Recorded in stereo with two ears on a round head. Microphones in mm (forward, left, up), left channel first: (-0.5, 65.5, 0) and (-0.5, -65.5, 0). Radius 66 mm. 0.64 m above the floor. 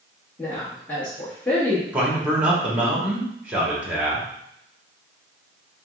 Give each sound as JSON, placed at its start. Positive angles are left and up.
{"t": 0.4, "sound": "a woman speaking", "side_deg": 15, "distance_m": 1.2}
{"t": 1.9, "sound": "a man speaking", "side_deg": -10, "distance_m": 1.0}